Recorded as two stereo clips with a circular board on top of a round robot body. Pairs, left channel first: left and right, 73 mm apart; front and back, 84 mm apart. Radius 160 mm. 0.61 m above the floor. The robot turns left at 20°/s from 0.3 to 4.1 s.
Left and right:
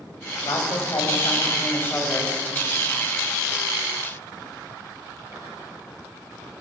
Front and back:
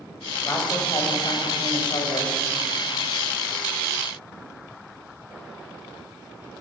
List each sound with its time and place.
0.5 s a woman speaking: 60° left, 5 m; by 2.4 s 20° left, 5 m